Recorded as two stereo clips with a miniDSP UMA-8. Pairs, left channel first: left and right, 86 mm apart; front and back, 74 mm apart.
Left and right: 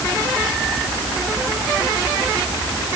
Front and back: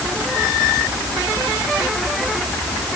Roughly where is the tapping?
No tapping in this recording.